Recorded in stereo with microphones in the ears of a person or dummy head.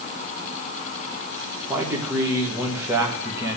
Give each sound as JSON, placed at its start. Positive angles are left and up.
{"t": 1.7, "sound": "a man speaking", "side_deg": -20, "distance_m": 1.7}